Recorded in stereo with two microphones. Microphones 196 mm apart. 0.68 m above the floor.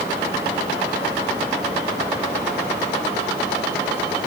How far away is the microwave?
I don't hear a microwave.